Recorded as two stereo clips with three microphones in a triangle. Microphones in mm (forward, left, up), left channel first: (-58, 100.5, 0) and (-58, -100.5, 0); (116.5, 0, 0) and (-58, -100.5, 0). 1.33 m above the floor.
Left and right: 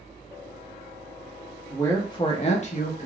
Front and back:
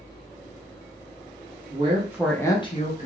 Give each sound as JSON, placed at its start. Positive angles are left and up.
{"t": 1.7, "sound": "a woman speaking", "azimuth_deg": 170, "distance_m": 0.6}